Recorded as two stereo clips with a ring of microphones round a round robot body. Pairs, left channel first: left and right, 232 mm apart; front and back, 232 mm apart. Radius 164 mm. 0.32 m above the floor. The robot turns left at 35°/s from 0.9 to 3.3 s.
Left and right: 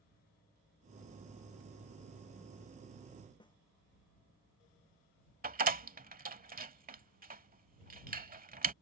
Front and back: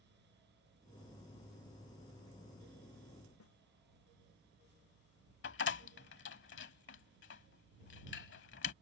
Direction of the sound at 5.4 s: 40° right.